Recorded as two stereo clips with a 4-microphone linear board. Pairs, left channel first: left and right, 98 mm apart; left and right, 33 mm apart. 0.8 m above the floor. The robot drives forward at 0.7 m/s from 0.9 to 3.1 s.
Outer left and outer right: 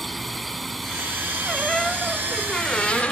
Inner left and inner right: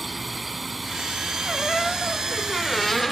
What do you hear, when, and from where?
0.0 s a drone: centre (ahead or behind)
1.4 s a squeak: 5° left (ahead or behind); by 3.1 s 15° left (ahead or behind)